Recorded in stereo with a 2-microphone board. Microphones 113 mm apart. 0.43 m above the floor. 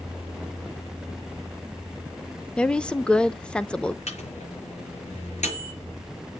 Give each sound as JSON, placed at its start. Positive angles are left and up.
{"t": 2.6, "sound": "a woman speaking", "side_deg": 10, "distance_m": 0.7}
{"t": 4.1, "sound": "a microwave", "side_deg": 80, "distance_m": 6.5}